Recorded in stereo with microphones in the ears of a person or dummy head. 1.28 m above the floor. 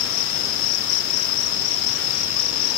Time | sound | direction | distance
0.0 | an insect | 70° left (ahead or behind) | ?